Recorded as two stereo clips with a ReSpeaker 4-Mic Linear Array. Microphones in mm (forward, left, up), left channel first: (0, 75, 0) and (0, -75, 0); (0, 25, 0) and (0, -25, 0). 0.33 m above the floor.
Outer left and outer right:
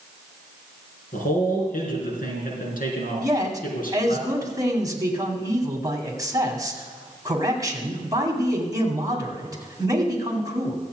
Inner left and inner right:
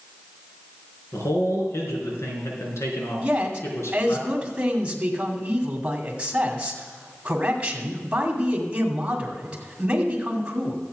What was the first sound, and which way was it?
A man speaking, 75° left (ahead or behind).